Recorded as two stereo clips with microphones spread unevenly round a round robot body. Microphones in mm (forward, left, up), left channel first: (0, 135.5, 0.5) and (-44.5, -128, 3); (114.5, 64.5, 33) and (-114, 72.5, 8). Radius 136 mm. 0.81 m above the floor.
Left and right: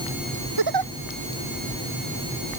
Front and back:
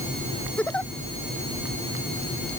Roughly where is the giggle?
Right.